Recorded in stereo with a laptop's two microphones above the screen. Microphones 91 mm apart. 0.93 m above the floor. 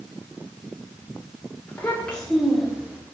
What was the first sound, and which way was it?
A child speaking, 20° left (ahead or behind).